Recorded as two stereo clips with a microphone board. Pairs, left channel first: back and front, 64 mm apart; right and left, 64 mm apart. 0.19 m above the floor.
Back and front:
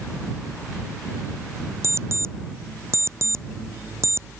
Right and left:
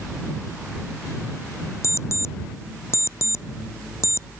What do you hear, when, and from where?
1.8 s an alarm clock: 45° right